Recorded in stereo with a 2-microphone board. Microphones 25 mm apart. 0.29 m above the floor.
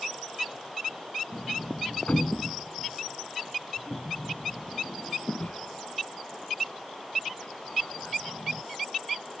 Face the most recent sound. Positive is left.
turn(degrees=70)  # may be behind; listen again after turning